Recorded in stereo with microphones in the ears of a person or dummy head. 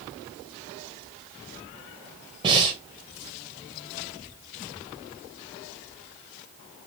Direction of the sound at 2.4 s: 30° right (ahead or behind).